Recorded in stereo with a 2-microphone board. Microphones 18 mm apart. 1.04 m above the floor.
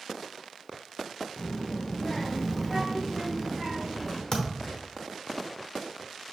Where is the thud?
45° left (ahead or behind), 1.0 m.